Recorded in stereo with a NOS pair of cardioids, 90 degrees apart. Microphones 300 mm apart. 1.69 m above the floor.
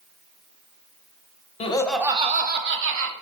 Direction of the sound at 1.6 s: 20° left.